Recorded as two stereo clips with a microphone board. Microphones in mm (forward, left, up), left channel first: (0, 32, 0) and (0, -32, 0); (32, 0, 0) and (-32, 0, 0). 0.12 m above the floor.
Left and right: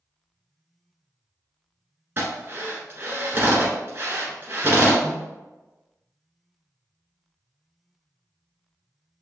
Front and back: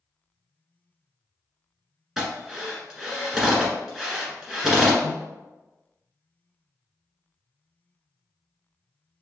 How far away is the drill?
About 1.6 m.